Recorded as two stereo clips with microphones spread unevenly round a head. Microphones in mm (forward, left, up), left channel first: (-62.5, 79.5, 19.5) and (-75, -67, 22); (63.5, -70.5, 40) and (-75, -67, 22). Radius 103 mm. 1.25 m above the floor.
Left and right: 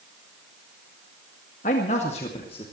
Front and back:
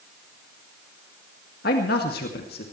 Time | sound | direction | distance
1.6 | a man speaking | 30° left | 2 m